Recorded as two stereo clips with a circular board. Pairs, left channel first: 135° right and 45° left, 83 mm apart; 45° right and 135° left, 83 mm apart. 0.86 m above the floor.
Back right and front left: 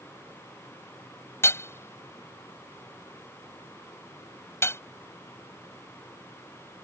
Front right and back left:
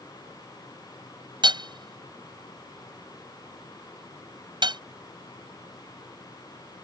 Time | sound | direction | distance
1.4 | hammering | 165° left | ?